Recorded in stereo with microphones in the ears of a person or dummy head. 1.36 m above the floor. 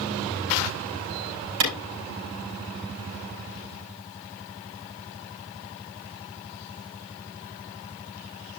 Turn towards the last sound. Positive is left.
turn(degrees=-75)  # may be behind; listen again after turning